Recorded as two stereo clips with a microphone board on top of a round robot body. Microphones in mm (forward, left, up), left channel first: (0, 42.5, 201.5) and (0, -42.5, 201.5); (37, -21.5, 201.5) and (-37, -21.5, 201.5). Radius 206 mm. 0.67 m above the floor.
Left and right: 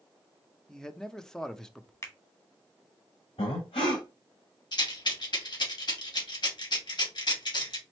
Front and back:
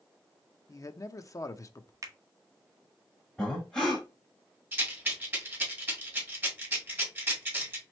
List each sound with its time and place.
0.7 s a man speaking: 10° left, 0.8 m
2.0 s a finger snap: 140° left, 1.4 m
3.4 s breathing: 80° left, 0.6 m
4.7 s a rattle: 115° left, 2 m